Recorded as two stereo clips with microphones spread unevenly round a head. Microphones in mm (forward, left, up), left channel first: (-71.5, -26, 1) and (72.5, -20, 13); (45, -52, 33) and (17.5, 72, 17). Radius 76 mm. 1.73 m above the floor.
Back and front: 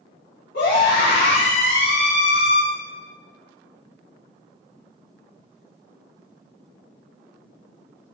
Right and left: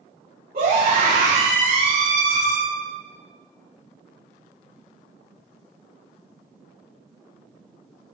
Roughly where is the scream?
Behind left.